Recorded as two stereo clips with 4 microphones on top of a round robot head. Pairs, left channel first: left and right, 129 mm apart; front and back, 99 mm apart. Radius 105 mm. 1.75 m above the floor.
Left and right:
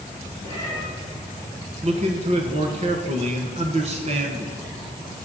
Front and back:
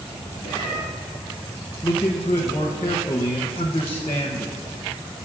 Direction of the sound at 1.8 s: 65° right.